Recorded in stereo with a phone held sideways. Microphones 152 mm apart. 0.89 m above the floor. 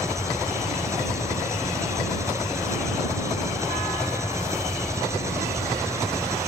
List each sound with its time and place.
0.0 s an engine running: 20° right (ahead or behind)